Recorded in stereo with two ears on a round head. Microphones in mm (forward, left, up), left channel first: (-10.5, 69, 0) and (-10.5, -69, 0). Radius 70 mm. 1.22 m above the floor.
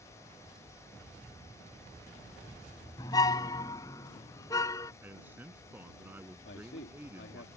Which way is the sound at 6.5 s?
85° left.